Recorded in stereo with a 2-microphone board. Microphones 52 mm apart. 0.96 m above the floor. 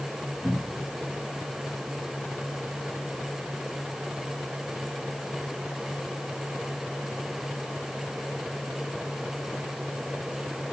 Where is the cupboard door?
40° left (ahead or behind), 5 m.